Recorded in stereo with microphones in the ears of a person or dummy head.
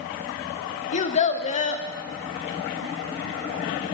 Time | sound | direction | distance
0.9 | a child speaking | 40° left (ahead or behind) | 0.8 m